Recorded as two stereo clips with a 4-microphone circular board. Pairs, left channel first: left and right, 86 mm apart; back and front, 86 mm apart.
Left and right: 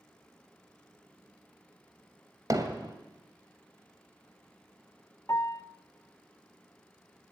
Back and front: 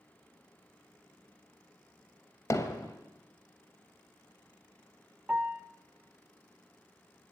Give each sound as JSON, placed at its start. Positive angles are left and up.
{"t": 2.5, "sound": "hammering", "azimuth_deg": -130, "distance_m": 2.5}
{"t": 5.3, "sound": "a piano", "azimuth_deg": 65, "distance_m": 1.2}